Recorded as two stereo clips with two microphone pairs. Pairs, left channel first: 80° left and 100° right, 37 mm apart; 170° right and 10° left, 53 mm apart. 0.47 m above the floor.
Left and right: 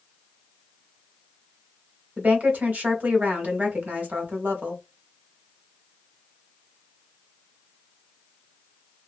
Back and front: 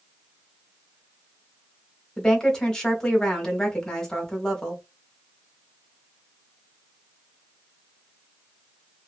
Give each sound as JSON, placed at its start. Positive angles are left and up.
{"t": 2.2, "sound": "a woman speaking", "azimuth_deg": -95, "distance_m": 1.0}